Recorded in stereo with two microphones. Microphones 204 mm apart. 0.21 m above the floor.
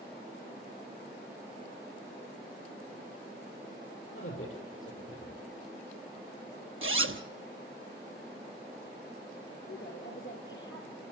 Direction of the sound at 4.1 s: 80° left.